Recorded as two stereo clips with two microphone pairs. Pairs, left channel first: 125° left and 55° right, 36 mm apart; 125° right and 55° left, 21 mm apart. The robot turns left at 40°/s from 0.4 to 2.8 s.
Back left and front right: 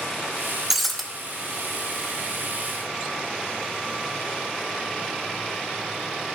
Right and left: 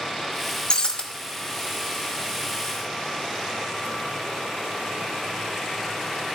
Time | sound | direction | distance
0.7 | breaking glass | 135° right | 1.1 m